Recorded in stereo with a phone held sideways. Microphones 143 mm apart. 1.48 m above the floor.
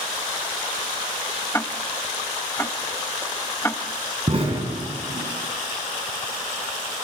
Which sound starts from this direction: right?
An explosion, at 4.3 s.